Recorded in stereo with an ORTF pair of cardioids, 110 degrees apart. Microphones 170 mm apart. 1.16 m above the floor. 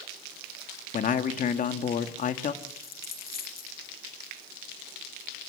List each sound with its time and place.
0.9 s a man speaking: 50° left, 1.8 m
2.6 s a dropped coin: 60° left, 5 m